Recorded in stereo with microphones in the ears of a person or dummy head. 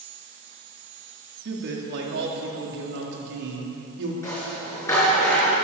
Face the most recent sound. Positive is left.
turn(degrees=15)  # may be behind; listen again after turning